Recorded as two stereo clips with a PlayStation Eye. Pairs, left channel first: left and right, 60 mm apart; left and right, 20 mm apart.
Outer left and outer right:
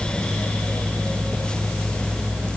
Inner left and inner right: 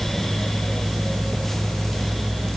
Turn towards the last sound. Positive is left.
No sound to turn to.